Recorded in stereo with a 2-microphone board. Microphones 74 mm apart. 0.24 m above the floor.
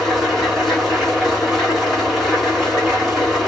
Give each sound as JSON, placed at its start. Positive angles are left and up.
{"t": 0.0, "sound": "an engine running", "side_deg": 0, "distance_m": 2.5}